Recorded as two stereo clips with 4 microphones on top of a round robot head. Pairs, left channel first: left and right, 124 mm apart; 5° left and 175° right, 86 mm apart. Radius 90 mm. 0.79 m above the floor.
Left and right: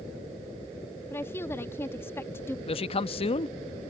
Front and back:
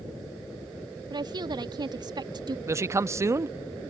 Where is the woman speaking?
160° left.